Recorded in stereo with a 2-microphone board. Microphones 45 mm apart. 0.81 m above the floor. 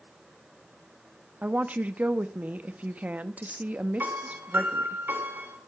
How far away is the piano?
About 3 m.